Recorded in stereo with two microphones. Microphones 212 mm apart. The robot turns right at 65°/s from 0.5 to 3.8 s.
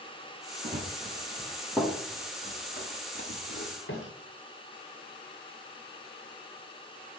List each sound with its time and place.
0.6 s running footsteps: 45° right (ahead or behind), 2.5 m; by 4.1 s 65° left (ahead or behind), 3 m